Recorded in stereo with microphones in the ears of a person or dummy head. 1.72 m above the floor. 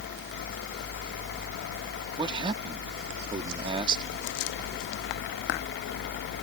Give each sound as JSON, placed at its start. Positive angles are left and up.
{"t": 2.2, "sound": "a man speaking", "side_deg": -30}